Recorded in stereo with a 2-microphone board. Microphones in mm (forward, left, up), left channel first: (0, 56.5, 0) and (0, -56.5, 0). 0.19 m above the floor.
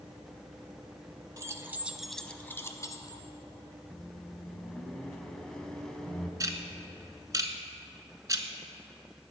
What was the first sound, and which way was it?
Keys jangling, 30° right (ahead or behind).